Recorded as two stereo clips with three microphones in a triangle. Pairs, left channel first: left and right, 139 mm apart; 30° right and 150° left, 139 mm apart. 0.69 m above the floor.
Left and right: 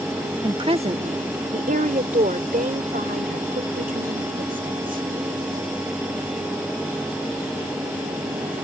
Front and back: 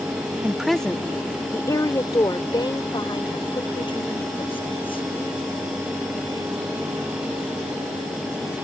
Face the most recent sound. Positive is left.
turn(degrees=-80)